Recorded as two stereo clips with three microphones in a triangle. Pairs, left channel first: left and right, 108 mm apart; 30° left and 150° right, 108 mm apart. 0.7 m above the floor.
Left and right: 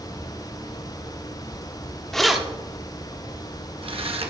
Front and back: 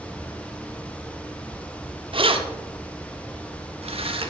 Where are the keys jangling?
175° left, 0.9 m; by 4.3 s 115° right, 1.3 m.